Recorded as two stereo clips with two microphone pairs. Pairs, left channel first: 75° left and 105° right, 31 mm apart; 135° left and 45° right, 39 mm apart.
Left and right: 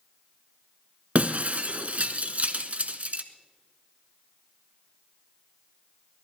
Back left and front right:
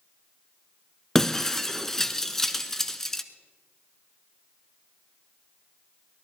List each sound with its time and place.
1.1 s breaking glass: 145° right, 0.9 m